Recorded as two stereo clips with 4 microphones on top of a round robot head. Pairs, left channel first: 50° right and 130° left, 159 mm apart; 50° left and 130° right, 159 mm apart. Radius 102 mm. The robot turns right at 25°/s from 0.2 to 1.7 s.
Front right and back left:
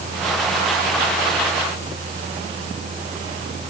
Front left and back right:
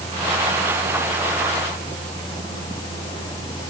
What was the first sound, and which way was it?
Only background noise.